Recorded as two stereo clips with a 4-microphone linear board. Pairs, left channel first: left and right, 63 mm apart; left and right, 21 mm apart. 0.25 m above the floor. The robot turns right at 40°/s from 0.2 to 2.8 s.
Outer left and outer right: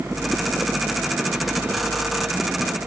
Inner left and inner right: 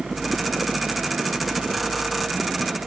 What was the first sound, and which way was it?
Only background noise.